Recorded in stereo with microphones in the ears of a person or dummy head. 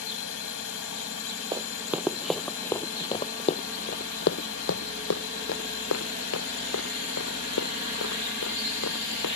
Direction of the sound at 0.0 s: 70° left (ahead or behind).